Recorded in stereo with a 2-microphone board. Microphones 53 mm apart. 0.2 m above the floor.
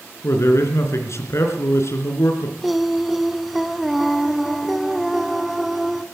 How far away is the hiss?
No hiss in this recording.